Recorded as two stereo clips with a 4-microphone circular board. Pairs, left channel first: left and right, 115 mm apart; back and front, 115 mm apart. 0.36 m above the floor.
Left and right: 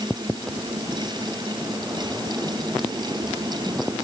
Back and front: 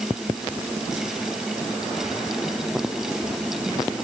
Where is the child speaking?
I don't hear a child speaking.